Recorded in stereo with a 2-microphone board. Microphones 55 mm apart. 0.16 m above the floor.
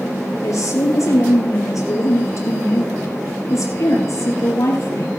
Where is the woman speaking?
70° left (ahead or behind), 4 m.